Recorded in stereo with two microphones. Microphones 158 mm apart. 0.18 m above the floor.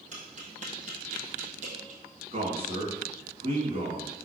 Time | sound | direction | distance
0.1 | tapping | 50° right (ahead or behind) | 2.5 m
2.3 | a man speaking | 40° right (ahead or behind) | 2 m